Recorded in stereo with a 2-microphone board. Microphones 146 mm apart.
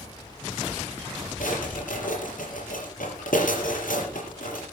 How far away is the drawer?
About 6 m.